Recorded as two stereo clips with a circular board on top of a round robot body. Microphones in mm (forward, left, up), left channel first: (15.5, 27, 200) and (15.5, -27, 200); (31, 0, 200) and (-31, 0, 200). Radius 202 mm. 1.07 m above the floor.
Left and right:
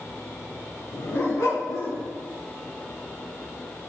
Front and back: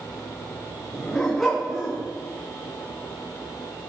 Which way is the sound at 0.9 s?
85° left.